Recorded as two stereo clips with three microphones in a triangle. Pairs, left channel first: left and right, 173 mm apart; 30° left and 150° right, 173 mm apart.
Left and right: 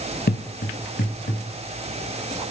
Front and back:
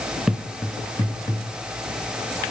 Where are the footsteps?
125° left, 0.5 m; by 1.4 s 95° left, 1.7 m.